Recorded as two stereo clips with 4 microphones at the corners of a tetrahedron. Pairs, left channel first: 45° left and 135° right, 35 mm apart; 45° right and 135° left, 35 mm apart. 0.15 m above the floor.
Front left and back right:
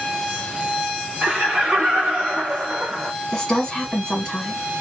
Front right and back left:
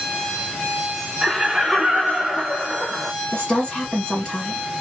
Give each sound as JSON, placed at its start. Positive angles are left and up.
{"t": 1.2, "sound": "laughter", "azimuth_deg": -160, "distance_m": 1.2}
{"t": 3.3, "sound": "a woman speaking", "azimuth_deg": -5, "distance_m": 1.8}